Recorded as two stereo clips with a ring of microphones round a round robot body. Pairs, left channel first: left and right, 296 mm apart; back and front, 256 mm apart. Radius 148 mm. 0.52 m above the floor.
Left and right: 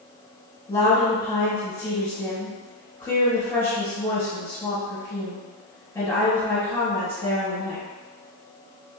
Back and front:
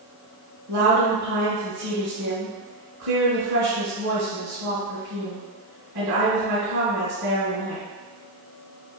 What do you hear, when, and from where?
0.7 s a woman speaking: 10° left, 1.8 m